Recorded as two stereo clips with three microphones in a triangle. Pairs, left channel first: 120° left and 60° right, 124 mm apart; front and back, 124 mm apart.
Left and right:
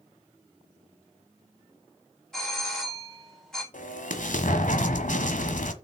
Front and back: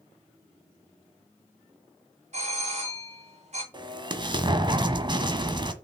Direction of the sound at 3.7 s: 125° left.